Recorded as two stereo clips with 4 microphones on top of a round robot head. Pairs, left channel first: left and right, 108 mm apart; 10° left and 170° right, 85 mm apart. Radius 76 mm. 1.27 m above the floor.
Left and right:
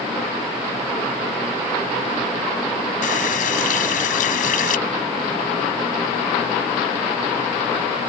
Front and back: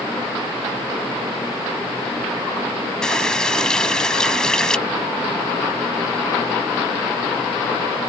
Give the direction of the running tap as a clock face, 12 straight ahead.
9 o'clock.